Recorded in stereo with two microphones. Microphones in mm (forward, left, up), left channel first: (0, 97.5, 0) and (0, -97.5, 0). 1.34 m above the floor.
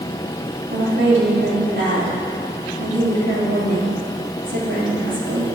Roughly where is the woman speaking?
Right.